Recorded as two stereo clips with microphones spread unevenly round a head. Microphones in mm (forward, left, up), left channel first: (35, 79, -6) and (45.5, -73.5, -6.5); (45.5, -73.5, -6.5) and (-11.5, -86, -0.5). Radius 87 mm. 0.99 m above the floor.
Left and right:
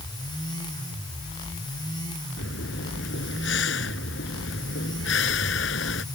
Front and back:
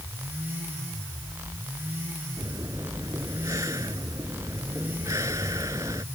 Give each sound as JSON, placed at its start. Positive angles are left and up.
{"t": 2.4, "sound": "breathing", "azimuth_deg": 120}